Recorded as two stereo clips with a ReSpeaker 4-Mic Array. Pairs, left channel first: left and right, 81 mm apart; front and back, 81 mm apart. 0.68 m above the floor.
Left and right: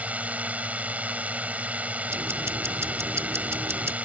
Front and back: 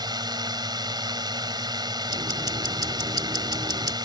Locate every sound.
0.0 s a drone: 160° right
2.1 s ticking: 150° right